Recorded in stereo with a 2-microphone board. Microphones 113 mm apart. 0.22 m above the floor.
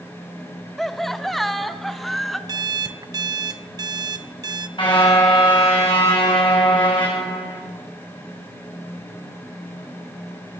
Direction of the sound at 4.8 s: 45° left (ahead or behind).